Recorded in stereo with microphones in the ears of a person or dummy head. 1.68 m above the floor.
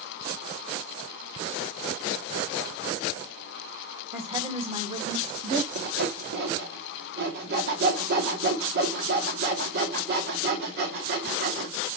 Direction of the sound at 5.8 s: 60° right (ahead or behind).